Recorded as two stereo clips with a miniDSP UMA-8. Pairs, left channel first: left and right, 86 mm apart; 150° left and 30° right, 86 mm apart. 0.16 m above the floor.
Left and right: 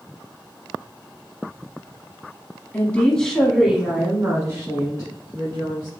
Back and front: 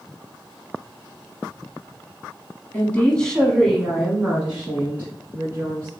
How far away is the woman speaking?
About 1.1 m.